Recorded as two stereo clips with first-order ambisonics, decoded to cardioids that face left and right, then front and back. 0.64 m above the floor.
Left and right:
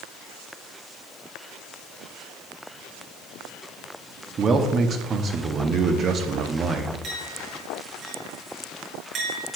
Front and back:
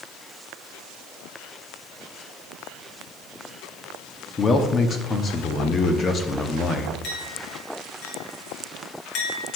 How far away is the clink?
About 2.5 m.